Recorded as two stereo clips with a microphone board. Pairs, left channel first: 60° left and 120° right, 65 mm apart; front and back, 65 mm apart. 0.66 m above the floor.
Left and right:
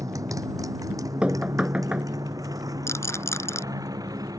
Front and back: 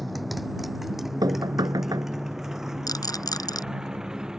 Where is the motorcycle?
90° right; by 4.4 s 100° right.